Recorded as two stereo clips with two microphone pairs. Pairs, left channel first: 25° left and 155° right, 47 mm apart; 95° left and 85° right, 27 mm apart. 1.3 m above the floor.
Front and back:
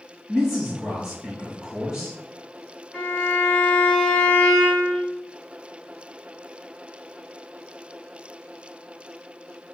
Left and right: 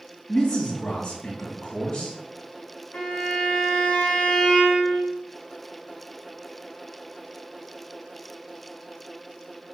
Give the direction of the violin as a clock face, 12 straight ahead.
9 o'clock.